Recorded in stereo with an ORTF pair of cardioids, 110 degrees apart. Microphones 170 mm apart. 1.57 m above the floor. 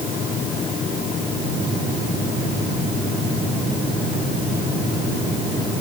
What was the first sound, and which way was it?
Only background noise.